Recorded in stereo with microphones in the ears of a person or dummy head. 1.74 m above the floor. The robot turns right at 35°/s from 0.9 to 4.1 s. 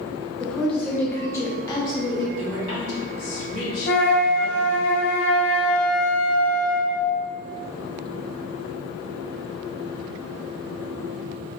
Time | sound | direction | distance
0.4 | a woman speaking | 15° left | 0.6 m
2.4 | a woman speaking | 65° left | 1.1 m
3.9 | a flute | 65° left (ahead or behind) | 0.6 m